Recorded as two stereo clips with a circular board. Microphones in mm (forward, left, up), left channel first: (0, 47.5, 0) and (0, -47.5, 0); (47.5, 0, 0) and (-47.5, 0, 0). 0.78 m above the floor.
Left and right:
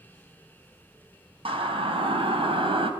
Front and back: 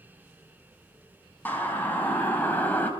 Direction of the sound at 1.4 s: 70° right.